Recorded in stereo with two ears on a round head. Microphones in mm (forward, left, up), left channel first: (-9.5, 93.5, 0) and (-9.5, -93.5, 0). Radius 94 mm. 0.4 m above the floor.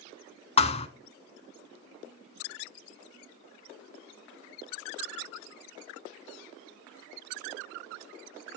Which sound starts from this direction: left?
A thud, at 0.6 s.